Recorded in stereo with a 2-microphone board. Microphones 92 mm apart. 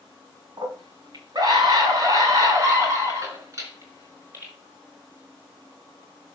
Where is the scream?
50° right (ahead or behind), 3 m; by 4.5 s 30° right (ahead or behind), 4.5 m.